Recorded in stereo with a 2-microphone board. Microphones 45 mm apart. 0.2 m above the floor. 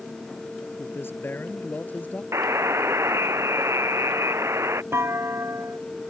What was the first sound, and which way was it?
A man speaking, 55° left (ahead or behind).